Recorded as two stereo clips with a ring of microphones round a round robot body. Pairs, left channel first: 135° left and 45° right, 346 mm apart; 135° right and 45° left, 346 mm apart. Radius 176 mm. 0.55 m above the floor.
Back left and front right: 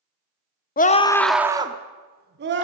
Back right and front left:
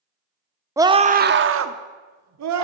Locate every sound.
0.8 s a scream: 115° left, 0.9 m; by 2.6 s 10° left, 1.6 m